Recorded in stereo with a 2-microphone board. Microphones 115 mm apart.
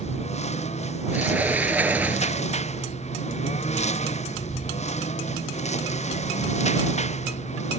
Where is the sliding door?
15° right (ahead or behind).